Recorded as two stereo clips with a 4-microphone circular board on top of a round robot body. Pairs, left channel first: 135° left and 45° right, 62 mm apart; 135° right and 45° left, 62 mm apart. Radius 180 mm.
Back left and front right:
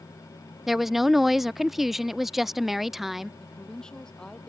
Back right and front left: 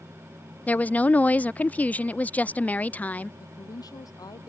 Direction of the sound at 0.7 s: 125° right.